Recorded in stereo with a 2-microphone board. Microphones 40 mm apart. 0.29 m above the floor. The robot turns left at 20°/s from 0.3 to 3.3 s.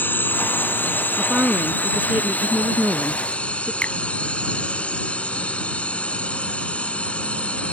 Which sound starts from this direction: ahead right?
A woman speaking, at 1.2 s.